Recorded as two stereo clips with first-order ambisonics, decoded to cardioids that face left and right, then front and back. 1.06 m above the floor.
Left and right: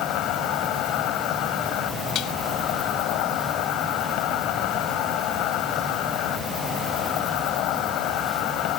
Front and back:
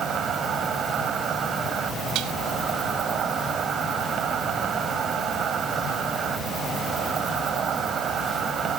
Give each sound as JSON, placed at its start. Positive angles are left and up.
{"t": 0.0, "sound": "an insect", "azimuth_deg": 120}
{"t": 2.1, "sound": "dishes clattering", "azimuth_deg": 135}